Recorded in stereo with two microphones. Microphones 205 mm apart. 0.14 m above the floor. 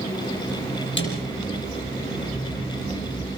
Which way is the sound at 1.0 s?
65° left (ahead or behind).